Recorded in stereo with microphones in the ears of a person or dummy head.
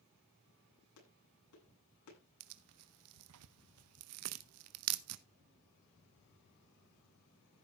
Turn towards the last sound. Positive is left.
turn(degrees=-75)  # may be behind; listen again after turning